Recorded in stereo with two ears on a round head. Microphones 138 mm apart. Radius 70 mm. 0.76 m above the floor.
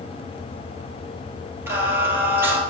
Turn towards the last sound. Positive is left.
turn(degrees=-15)  # may be behind; listen again after turning